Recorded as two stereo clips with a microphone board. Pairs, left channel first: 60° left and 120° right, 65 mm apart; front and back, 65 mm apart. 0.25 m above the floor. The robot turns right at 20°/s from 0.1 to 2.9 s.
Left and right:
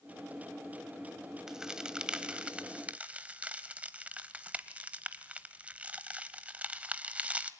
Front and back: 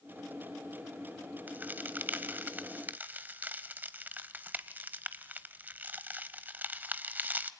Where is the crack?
165° left, 1.0 m; by 7.5 s 165° right, 1.0 m.